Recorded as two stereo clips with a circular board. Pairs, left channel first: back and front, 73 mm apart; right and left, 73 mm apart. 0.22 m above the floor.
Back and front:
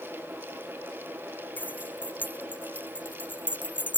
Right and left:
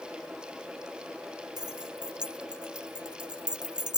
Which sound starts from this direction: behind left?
Keys jangling, at 1.6 s.